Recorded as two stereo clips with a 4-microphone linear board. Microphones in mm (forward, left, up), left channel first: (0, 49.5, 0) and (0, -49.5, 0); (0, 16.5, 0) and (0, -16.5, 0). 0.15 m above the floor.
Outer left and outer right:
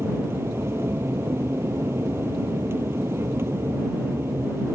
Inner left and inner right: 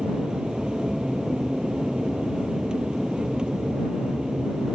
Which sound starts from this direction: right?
An aircraft, at 0.0 s.